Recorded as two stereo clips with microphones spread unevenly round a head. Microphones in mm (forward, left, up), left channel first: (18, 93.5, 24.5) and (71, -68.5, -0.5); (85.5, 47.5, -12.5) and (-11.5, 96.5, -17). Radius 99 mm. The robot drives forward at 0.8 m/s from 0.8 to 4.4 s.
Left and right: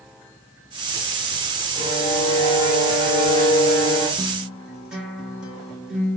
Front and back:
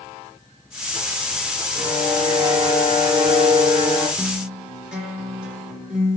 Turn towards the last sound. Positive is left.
turn(degrees=-155)